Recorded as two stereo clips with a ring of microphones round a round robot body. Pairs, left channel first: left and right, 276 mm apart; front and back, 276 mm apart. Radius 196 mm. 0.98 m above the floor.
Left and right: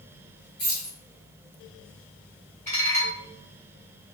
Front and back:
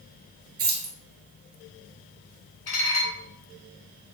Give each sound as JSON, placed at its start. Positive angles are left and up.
{"t": 0.6, "sound": "keys jangling", "azimuth_deg": 165, "distance_m": 3.5}
{"t": 2.7, "sound": "dishes clattering", "azimuth_deg": 25, "distance_m": 3.5}